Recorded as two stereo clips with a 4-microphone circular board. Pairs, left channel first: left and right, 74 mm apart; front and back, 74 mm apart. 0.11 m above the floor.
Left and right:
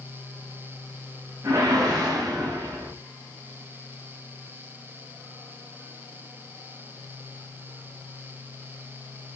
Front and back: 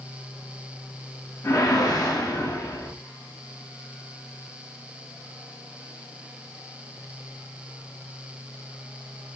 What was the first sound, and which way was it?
A whoosh, 45° right.